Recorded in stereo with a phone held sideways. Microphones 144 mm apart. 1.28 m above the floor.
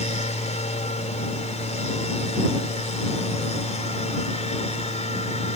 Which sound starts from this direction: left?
A machine running, at 0.0 s.